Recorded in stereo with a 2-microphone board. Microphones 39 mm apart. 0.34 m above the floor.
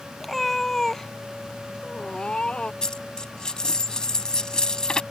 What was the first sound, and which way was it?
A cat meowing, 5° left (ahead or behind).